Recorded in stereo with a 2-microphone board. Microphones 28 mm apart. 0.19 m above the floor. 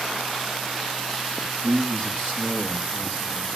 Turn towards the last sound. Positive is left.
turn(degrees=-75)  # may be behind; listen again after turning